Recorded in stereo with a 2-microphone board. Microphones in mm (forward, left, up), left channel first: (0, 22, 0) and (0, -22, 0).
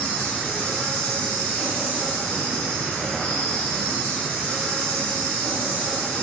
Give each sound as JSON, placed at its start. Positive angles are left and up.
{"t": 0.0, "sound": "an insect", "side_deg": 20, "distance_m": 1.0}